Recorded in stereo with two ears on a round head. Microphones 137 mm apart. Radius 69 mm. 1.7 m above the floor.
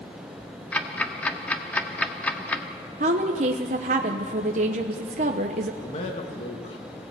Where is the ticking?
10° left (ahead or behind), 1.4 m.